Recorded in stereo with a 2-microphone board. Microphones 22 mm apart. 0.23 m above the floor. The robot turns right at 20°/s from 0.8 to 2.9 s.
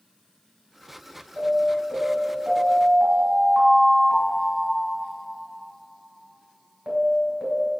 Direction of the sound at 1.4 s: 130° right.